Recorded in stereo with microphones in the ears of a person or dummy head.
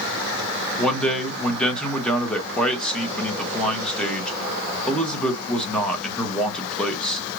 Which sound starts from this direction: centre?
A man speaking, at 0.8 s.